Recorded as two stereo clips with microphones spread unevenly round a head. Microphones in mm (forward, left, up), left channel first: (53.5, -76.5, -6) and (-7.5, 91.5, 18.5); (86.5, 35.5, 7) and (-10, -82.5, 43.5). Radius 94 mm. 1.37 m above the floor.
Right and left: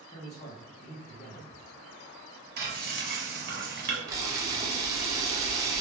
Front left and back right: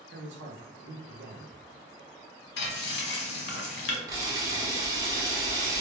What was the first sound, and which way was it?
A man speaking, 125° right.